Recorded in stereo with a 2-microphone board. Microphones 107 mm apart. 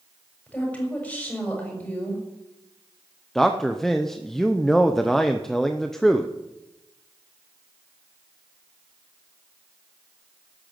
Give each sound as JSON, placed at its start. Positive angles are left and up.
{"t": 0.5, "sound": "a woman speaking", "side_deg": 15, "distance_m": 7.0}
{"t": 3.4, "sound": "a man speaking", "side_deg": 5, "distance_m": 0.8}